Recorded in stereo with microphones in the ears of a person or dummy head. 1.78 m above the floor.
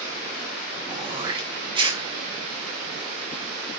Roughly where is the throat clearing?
Right.